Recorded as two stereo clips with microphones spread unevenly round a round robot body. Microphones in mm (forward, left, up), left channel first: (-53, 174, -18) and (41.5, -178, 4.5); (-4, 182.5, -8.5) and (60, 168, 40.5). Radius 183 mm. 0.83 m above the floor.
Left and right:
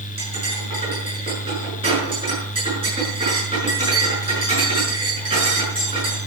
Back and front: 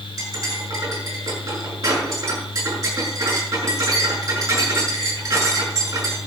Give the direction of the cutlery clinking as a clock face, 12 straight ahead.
12 o'clock.